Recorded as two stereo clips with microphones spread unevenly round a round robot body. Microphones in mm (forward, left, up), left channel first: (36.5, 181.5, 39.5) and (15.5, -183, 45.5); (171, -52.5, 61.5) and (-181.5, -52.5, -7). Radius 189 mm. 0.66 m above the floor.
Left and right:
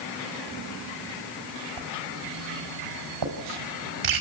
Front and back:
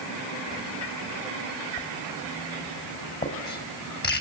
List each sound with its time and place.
1.8 s writing: 65° right, 4 m